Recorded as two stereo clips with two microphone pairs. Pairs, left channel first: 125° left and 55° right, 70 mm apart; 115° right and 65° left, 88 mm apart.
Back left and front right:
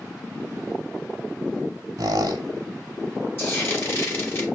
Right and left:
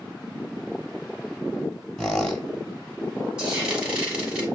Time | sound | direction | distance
2.0 | a squeak | 30° right | 0.6 m
3.4 | frying | 135° left | 1.2 m